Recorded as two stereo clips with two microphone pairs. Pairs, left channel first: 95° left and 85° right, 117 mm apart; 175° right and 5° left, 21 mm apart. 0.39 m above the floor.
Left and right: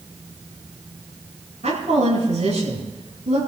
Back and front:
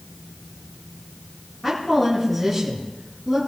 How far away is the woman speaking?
About 10 m.